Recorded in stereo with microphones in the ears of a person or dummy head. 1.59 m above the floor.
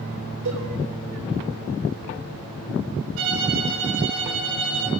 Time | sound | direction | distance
0.5 | a cowbell | 65° right (ahead or behind) | 7.5 m
3.2 | a violin | 75° right (ahead or behind) | 4 m